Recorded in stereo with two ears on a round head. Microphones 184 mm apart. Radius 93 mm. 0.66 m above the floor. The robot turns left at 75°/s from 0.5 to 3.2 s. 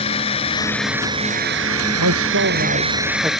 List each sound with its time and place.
0.0 s a drone: 25° left (ahead or behind); by 3.4 s centre (ahead or behind)
2.0 s a man speaking: 80° right; by 3.3 s 170° right